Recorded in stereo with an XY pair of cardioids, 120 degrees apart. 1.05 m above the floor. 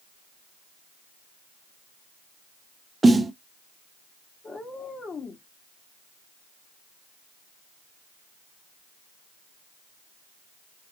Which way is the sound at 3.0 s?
15° right.